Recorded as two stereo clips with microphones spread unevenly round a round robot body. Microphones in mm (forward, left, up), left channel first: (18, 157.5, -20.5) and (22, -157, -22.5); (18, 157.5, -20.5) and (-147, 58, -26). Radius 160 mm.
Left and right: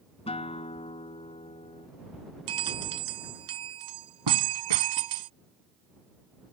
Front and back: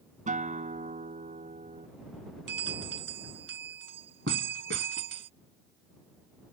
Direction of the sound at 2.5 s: 95° right.